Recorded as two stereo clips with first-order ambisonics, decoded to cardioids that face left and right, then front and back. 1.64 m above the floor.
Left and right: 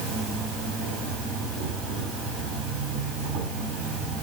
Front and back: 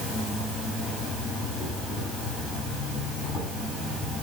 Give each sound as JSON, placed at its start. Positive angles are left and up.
{"t": 0.0, "sound": "an insect", "azimuth_deg": -75, "distance_m": 3.0}